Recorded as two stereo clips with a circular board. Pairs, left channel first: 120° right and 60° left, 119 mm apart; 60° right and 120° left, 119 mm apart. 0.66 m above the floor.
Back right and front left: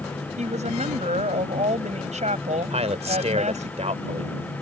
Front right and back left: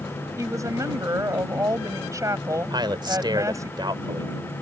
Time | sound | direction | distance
0.4 | a woman speaking | 60° left | ?
2.7 | a man speaking | 75° left | ?